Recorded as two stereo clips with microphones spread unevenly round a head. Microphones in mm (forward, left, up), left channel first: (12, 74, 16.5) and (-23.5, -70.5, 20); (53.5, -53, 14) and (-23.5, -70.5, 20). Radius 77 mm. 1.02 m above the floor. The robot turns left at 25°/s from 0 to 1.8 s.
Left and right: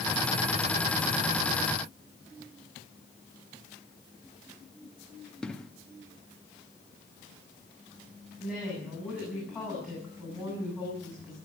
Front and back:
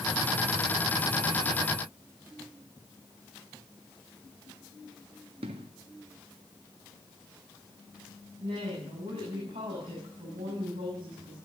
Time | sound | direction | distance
5.4 | an explosion | 160° left | 1.2 m
8.4 | a woman speaking | 170° left | 8.5 m